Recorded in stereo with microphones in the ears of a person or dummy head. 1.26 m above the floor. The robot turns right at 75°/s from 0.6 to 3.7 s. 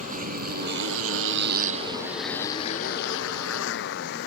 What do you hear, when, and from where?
0.0 s a motorcycle: 35° right (ahead or behind); by 4.3 s 60° left (ahead or behind)